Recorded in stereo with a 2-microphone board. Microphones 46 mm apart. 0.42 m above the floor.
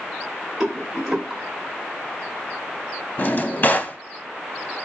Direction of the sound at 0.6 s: 10° right (ahead or behind).